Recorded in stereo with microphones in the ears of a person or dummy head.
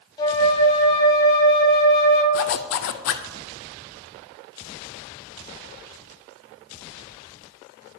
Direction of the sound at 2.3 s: 65° left (ahead or behind).